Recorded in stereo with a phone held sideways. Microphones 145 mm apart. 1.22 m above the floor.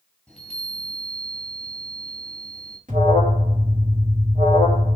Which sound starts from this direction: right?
An alarm, at 2.9 s.